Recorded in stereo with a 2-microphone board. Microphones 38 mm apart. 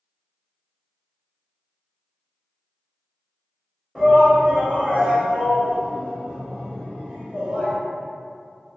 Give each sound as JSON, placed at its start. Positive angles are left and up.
{"t": 4.0, "sound": "a shout", "side_deg": -20, "distance_m": 1.4}